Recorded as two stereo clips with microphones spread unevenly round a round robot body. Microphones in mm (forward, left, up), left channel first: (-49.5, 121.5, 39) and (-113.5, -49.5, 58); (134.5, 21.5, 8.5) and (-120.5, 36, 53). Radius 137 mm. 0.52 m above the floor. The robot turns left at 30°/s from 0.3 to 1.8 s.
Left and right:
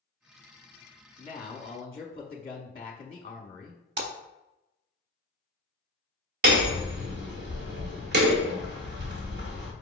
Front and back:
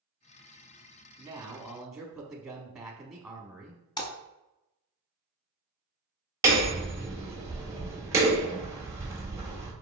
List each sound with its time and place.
1.2 s a man speaking: 95° left, 0.9 m; by 3.8 s 75° left, 0.9 m
4.0 s a splash: 85° right, 0.6 m
6.4 s hammering: 100° right, 1.1 m